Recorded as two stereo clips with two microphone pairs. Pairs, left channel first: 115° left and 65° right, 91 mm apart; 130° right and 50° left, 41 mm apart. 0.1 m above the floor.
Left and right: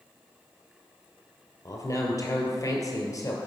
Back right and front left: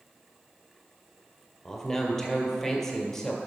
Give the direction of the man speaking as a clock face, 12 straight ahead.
7 o'clock.